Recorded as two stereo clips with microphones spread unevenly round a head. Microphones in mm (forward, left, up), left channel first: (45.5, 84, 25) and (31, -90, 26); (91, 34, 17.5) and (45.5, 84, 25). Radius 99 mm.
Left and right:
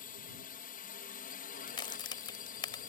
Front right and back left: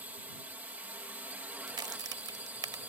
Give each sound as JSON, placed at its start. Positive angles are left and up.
{"t": 0.0, "sound": "a drone", "azimuth_deg": 70}
{"t": 1.7, "sound": "a crack", "azimuth_deg": 155}